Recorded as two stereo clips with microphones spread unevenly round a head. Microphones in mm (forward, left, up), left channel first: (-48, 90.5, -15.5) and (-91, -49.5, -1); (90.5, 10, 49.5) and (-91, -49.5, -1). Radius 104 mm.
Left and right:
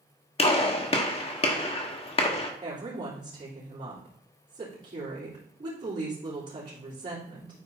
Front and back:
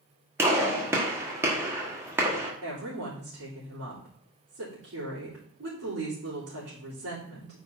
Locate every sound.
0.4 s a gunshot: 110° left, 1.2 m
2.6 s a woman speaking: 155° right, 3.5 m